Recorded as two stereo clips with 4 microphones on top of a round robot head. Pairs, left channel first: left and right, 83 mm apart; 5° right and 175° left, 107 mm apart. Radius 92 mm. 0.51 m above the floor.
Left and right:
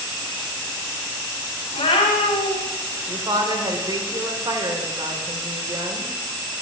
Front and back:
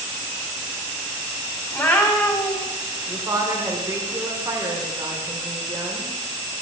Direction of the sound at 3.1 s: 120° right.